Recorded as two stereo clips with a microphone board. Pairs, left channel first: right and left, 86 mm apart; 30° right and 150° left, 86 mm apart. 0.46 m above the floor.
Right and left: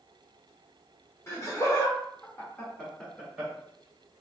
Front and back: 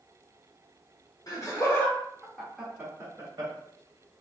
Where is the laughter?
50° right, 1.1 m; by 3.5 s straight behind, 1.1 m.